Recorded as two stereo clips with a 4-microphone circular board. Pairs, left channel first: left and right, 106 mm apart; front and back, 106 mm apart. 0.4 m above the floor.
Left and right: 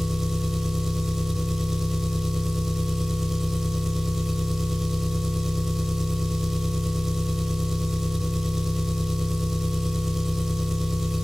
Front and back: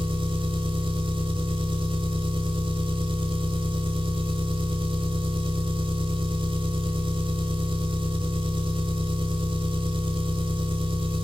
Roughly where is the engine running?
Behind.